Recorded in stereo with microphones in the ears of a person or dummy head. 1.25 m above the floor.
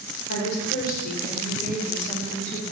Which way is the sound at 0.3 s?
65° left (ahead or behind).